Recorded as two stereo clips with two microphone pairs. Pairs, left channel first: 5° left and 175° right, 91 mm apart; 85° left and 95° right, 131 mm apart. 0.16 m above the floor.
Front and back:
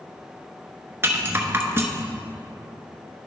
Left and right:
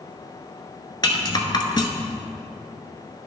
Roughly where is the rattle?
Behind left.